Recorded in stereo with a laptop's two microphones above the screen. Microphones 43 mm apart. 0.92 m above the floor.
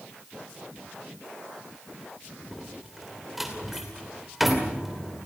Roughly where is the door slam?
Centre.